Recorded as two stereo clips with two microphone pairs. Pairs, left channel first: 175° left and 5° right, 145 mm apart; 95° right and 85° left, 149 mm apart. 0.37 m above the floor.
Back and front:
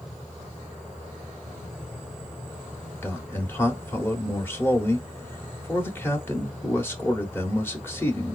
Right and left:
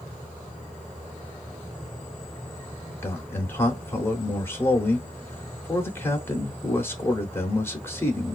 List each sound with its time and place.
3.0 s a man speaking: 135° right, 0.8 m